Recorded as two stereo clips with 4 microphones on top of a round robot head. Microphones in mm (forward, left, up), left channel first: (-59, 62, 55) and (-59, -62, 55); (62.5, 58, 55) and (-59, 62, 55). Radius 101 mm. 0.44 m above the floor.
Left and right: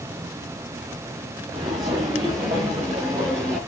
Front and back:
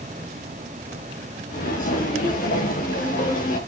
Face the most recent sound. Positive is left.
turn(degrees=-15)